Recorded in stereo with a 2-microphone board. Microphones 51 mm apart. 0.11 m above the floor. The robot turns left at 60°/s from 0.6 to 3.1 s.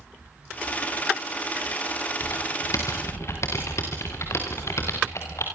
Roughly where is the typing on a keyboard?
Left.